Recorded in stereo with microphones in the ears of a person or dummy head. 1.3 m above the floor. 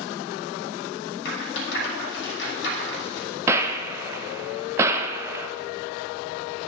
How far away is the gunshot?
About 0.7 m.